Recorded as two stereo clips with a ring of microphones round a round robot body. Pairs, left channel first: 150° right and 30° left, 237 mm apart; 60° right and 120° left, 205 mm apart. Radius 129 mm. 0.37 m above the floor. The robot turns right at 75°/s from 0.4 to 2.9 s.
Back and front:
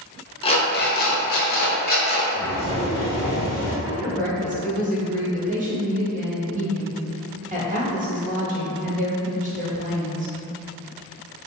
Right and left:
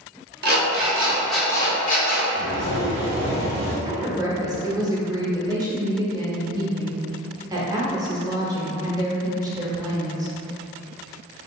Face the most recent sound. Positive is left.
turn(degrees=60)